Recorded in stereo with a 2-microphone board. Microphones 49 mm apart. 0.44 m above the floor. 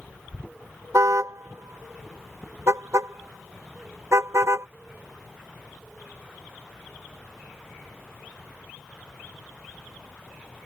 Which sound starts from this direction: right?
A car horn, at 0.9 s.